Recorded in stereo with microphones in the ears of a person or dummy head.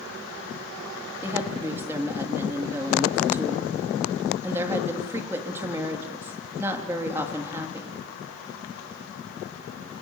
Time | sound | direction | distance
1.2 | a woman speaking | 10° right (ahead or behind) | 3 m